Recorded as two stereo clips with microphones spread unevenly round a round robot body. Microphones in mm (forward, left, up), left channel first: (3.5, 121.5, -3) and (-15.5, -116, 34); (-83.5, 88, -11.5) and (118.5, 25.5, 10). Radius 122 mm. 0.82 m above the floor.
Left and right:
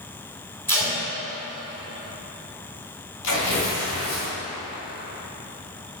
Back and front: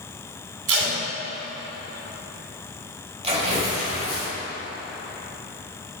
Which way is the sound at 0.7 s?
Straight ahead.